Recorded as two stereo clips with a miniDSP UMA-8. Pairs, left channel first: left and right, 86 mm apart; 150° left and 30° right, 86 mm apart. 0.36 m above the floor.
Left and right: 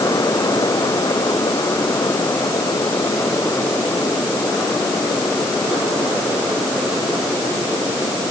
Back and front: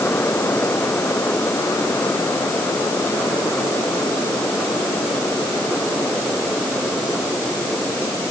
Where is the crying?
No crying in this recording.